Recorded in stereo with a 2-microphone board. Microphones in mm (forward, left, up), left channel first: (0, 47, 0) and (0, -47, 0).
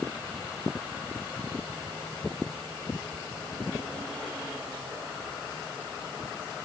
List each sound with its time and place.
Only background noise.